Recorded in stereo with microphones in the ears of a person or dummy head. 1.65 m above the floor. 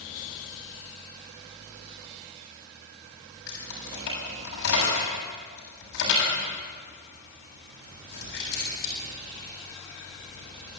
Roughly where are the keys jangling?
Left.